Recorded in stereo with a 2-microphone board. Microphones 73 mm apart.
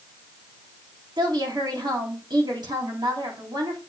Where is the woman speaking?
75° right (ahead or behind), 3 m.